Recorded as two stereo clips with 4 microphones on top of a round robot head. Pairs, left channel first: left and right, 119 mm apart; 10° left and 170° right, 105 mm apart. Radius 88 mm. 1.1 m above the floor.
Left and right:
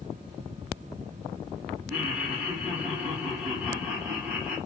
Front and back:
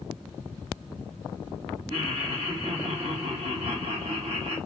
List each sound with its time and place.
1.9 s laughter: 175° left, 1.6 m